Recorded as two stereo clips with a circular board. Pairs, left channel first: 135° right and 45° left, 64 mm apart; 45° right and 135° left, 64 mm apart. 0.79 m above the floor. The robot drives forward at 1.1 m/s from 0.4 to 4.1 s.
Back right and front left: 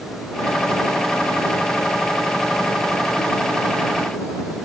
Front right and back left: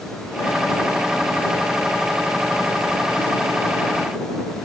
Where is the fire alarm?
I don't hear a fire alarm.